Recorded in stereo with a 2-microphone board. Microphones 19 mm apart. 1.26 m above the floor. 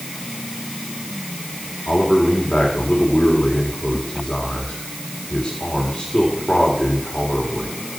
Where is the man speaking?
80° left, 3.5 m.